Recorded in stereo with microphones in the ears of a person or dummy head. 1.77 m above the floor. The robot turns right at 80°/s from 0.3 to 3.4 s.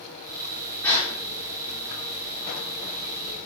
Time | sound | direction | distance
0.8 | a gasp | 5° left (ahead or behind) | 1.1 m